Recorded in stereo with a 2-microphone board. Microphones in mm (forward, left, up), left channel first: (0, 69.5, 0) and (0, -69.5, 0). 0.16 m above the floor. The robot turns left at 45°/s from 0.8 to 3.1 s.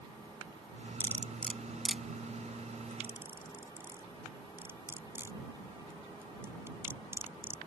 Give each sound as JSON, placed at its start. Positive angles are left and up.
{"t": 1.0, "sound": "cutlery clinking", "side_deg": 15}